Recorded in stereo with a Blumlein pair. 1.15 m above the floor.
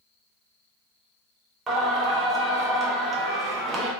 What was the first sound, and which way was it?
Singing, 20° right.